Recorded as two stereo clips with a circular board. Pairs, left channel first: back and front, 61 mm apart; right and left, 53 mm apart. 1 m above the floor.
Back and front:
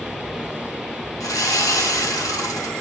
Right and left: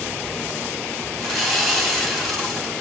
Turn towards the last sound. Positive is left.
turn(degrees=175)